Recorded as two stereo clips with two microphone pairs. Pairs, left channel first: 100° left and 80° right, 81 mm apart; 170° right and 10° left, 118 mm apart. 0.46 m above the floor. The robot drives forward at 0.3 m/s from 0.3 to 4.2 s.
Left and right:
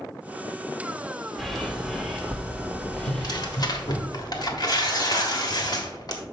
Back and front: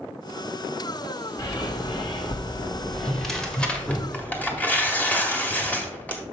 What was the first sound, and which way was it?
A bird, 175° right.